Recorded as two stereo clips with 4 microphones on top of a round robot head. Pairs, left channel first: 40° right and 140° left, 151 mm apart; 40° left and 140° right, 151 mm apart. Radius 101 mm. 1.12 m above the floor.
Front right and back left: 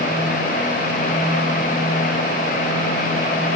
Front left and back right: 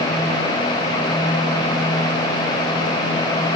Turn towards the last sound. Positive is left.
No sound to turn to.